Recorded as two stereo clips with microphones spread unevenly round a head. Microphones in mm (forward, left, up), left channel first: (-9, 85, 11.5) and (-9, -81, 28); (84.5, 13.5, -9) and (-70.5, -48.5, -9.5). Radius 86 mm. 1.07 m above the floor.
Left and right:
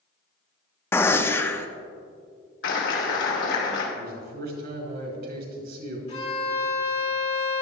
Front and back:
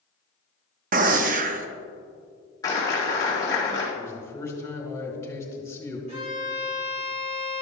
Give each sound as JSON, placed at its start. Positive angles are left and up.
{"t": 0.9, "sound": "a gunshot", "azimuth_deg": 170, "distance_m": 0.6}
{"t": 2.6, "sound": "a clap", "azimuth_deg": 95, "distance_m": 3.0}
{"t": 4.0, "sound": "a man speaking", "azimuth_deg": -55, "distance_m": 3.0}
{"t": 6.1, "sound": "a violin", "azimuth_deg": 145, "distance_m": 4.0}